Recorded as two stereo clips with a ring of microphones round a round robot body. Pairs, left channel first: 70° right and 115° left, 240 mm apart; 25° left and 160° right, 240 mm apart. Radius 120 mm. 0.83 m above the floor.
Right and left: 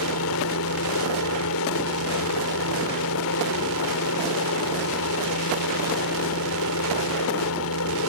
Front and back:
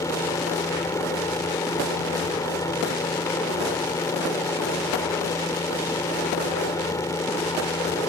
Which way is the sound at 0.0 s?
55° right.